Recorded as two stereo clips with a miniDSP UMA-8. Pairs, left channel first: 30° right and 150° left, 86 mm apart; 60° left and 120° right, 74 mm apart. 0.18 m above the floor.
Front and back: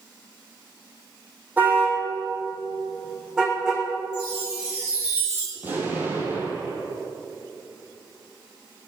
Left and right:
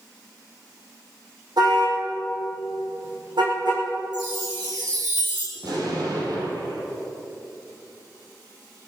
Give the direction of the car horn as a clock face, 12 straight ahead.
5 o'clock.